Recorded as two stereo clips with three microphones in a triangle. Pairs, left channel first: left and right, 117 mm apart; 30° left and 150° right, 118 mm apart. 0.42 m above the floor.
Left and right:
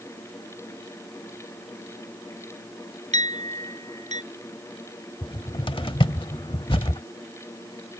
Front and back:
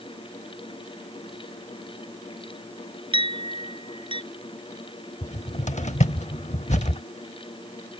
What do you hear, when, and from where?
3.1 s a clink: 105° right
5.2 s a cupboard door: 45° left